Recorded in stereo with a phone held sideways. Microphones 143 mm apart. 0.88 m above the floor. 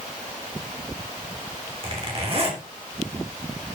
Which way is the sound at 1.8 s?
40° right (ahead or behind).